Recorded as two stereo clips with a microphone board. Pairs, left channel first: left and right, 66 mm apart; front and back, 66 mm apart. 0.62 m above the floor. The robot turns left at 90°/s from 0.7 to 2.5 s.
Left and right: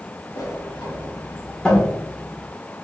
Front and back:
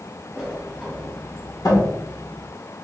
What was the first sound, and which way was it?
A sliding door, 100° left.